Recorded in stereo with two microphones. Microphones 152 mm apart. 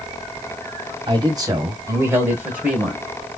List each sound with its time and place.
1.1 s a man speaking: 30° right (ahead or behind), 1.8 m; by 3.0 s 5° right (ahead or behind), 1.9 m